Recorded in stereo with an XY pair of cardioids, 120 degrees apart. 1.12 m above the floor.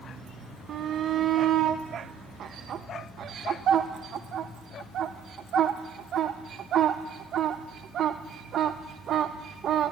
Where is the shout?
55° right, 0.9 m.